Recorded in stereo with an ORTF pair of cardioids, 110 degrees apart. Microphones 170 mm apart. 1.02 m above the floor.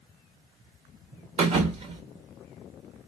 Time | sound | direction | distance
1.4 | a thud | 40° right | 1.2 m